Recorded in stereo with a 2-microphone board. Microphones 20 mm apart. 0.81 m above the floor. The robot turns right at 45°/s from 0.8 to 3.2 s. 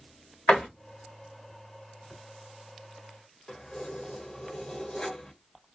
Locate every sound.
0.5 s a door slam: 75° left (ahead or behind), 1.2 m
3.5 s keys jangling: 45° left (ahead or behind), 0.9 m